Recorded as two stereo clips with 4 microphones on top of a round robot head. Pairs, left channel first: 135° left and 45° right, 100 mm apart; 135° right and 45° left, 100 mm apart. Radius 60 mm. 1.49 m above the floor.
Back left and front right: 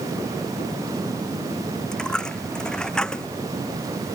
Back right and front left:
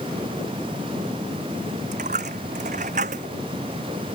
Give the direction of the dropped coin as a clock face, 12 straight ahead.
10 o'clock.